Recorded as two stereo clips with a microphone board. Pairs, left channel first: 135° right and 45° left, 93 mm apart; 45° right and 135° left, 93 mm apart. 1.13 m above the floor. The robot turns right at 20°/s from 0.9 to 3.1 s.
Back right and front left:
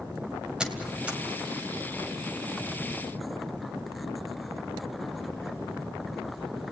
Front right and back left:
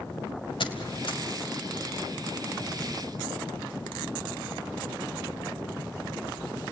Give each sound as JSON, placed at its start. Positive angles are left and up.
{"t": 0.6, "sound": "a squeak", "azimuth_deg": -35, "distance_m": 2.0}